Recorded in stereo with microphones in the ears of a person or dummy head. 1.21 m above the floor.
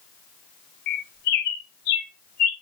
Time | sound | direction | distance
0.9 | a bird | 30° left (ahead or behind) | 0.5 m